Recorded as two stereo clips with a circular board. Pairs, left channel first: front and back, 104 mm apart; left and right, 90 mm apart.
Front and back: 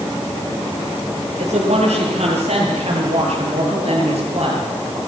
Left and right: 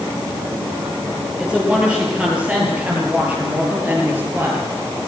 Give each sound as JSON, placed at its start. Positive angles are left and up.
{"t": 1.4, "sound": "a woman speaking", "azimuth_deg": -170, "distance_m": 10.0}